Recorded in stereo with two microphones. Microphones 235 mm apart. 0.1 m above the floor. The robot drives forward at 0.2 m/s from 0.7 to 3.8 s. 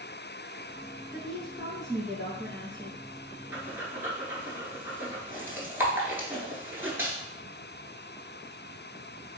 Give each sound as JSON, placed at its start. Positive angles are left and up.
{"t": 1.1, "sound": "a woman speaking", "side_deg": 0, "distance_m": 1.8}
{"t": 3.5, "sound": "breathing", "side_deg": -10, "distance_m": 0.7}